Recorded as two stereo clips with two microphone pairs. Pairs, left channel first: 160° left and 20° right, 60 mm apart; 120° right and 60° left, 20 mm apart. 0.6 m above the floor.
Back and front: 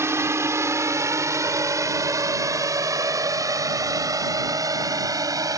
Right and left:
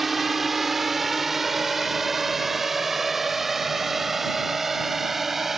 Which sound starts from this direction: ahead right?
A drone, at 0.0 s.